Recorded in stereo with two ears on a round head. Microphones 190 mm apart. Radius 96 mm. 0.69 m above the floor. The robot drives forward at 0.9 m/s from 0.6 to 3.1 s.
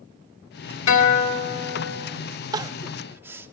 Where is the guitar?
65° left (ahead or behind), 2.0 m; by 2.1 s 55° left (ahead or behind), 2 m.